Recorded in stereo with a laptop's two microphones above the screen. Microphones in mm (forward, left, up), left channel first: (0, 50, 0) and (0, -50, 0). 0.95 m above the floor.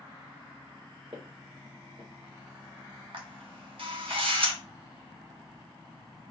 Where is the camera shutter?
60° right (ahead or behind), 1.5 m.